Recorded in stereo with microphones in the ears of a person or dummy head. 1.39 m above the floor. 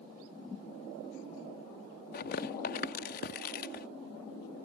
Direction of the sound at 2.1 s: 30° left (ahead or behind).